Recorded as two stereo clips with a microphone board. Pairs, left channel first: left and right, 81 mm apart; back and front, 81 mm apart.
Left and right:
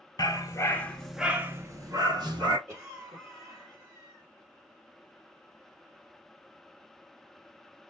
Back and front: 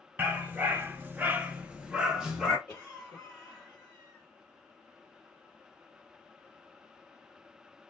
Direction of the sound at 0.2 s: 65° left.